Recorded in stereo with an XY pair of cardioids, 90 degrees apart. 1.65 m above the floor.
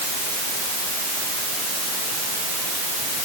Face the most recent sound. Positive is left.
No sound to turn to.